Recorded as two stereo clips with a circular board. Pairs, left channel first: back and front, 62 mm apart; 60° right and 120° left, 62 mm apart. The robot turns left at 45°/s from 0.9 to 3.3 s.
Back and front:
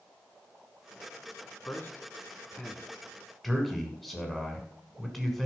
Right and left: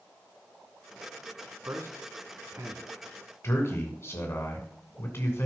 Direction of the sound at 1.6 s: 140° left.